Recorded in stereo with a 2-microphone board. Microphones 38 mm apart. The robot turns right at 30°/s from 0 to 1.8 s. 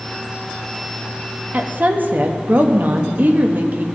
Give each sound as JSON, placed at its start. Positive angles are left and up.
{"t": 1.5, "sound": "a woman speaking", "side_deg": -45, "distance_m": 0.8}